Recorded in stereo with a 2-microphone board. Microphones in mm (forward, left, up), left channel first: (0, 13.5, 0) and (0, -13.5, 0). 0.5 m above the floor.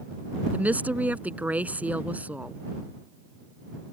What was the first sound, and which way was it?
A woman speaking, 75° right (ahead or behind).